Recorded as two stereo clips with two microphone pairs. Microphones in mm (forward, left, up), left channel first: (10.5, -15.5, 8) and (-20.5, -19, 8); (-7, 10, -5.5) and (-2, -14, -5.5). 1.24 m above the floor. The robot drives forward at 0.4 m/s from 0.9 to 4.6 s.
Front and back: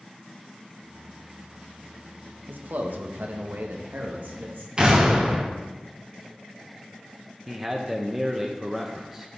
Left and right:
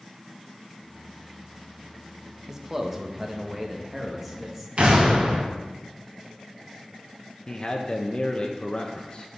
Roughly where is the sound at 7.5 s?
Behind left.